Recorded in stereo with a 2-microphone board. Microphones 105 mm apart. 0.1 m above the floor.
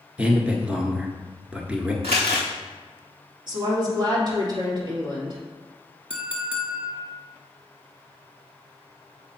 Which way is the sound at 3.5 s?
45° right (ahead or behind).